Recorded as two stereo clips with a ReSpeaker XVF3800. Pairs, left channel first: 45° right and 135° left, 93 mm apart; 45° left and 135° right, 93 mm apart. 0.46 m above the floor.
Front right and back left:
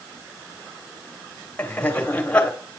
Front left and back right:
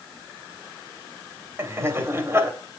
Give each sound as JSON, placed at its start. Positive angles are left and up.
{"t": 1.6, "sound": "laughter", "azimuth_deg": -110, "distance_m": 1.5}